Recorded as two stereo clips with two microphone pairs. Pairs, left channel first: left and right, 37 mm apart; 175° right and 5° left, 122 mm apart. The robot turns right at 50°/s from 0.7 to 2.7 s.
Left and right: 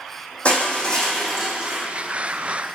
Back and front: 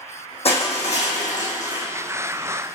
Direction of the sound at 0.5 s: 150° left.